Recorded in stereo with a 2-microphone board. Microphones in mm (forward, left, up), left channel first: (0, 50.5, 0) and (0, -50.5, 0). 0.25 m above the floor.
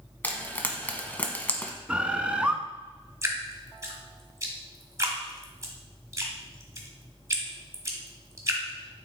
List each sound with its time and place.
0.2 s frying: 15° left (ahead or behind), 0.9 m
1.9 s a bird: 10° right (ahead or behind), 0.6 m
3.2 s dripping: 30° right (ahead or behind), 1.4 m